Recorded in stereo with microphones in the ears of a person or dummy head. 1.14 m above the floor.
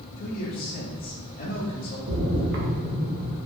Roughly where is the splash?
Right.